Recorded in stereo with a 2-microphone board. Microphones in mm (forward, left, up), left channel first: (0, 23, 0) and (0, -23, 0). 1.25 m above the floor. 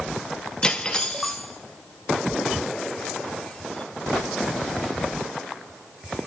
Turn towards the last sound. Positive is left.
turn(degrees=20)  # may be behind; listen again after turning